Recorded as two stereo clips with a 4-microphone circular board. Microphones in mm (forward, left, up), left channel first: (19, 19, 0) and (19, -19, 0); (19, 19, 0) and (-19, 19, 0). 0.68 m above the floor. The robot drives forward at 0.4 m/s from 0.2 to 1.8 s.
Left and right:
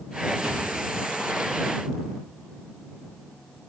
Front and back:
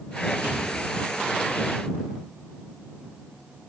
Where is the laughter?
I don't hear laughter.